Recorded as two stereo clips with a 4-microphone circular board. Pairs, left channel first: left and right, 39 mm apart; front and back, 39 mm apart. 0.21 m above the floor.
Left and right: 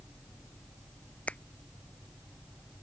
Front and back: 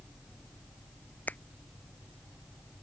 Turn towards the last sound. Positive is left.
turn(degrees=40)